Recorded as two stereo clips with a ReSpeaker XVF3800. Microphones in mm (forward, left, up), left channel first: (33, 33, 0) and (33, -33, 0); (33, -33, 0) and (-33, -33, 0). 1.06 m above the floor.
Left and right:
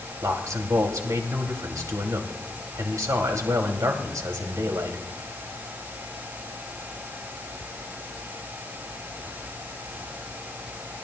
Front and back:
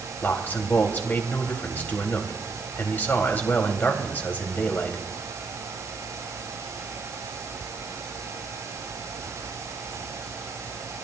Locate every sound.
0.2 s a man speaking: 60° right, 2.5 m